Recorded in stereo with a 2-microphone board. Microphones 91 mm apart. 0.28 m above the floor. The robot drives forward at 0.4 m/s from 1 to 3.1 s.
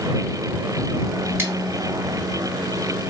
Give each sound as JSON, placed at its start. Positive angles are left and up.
{"t": 1.4, "sound": "scissors", "side_deg": -25, "distance_m": 1.6}